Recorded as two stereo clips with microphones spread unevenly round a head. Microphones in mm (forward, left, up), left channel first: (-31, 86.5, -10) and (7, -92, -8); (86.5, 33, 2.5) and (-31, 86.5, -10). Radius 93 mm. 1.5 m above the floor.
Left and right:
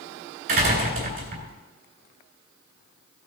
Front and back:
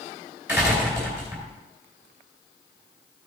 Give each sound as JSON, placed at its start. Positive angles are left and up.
{"t": 0.5, "sound": "a door slam", "azimuth_deg": -120, "distance_m": 3.5}